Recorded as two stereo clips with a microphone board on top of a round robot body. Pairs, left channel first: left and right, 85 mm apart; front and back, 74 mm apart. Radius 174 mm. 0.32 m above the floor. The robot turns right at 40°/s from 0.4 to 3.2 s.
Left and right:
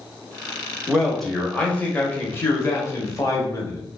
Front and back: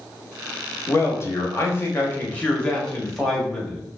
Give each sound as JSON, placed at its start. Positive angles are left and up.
{"t": 0.9, "sound": "a man speaking", "azimuth_deg": -10, "distance_m": 1.0}